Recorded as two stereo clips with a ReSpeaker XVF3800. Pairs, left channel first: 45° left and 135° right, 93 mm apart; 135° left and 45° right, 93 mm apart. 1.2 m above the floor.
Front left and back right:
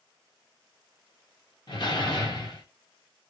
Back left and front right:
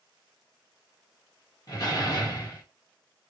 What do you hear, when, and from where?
1.7 s a door slam: 85° left, 1.4 m